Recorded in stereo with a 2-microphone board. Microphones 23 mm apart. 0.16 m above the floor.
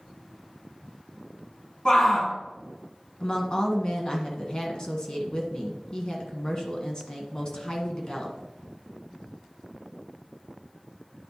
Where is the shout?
35° left (ahead or behind), 1.9 m.